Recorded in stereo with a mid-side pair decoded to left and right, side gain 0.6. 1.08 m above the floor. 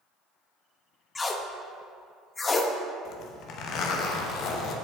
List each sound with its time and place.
1.1 s tape being pulled: 25° left, 0.8 m
3.0 s a zipper: 60° left, 1.0 m